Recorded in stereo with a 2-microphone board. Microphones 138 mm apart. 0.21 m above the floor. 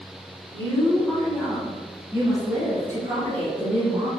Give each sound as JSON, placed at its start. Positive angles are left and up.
{"t": 0.5, "sound": "a woman speaking", "side_deg": 25, "distance_m": 1.1}